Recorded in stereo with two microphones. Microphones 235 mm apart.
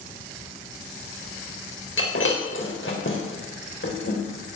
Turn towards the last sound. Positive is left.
turn(degrees=60)  # may be behind; listen again after turning